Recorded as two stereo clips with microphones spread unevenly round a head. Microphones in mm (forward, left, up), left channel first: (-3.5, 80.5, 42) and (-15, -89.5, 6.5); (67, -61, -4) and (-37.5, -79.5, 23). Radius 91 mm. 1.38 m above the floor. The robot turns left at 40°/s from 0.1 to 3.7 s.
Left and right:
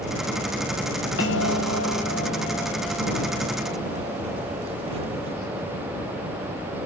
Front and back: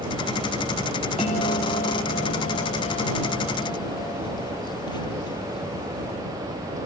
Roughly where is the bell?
Ahead left.